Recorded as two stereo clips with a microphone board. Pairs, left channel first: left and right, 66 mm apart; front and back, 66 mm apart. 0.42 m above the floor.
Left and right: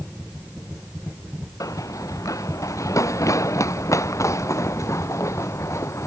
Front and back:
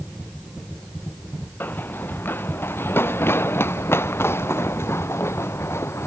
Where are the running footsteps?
60° left; by 6.1 s 50° left.